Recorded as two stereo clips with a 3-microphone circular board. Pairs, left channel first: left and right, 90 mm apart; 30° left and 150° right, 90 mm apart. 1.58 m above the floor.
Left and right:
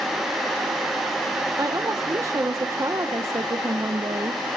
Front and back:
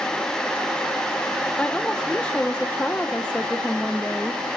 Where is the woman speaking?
45° right, 0.9 m.